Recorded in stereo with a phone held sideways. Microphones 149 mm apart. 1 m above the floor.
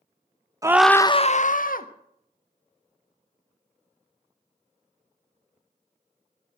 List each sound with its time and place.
0.6 s a scream: 20° right (ahead or behind), 0.8 m; by 1.9 s 70° left (ahead or behind), 1.5 m